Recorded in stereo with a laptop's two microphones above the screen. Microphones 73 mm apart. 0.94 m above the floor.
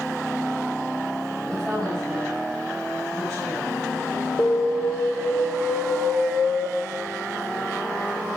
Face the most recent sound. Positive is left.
turn(degrees=50)  # may be behind; listen again after turning